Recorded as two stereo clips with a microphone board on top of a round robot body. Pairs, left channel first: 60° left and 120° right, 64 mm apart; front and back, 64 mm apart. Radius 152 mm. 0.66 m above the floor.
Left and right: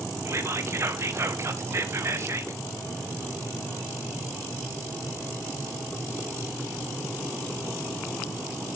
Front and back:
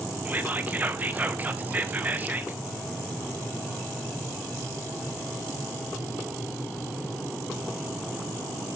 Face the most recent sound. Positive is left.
turn(degrees=-130)